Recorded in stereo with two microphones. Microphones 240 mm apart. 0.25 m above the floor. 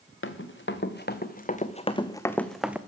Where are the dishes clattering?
I don't hear dishes clattering.